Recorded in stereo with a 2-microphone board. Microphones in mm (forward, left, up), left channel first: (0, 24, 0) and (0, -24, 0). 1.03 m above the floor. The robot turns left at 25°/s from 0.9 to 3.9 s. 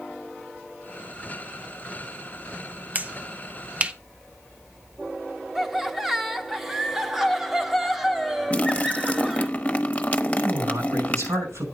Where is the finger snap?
35° right (ahead or behind), 0.6 m; by 3.9 s 25° right (ahead or behind), 0.6 m.